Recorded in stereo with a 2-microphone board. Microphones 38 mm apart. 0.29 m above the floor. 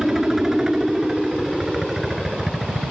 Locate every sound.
0.0 s a helicopter: 10° right (ahead or behind)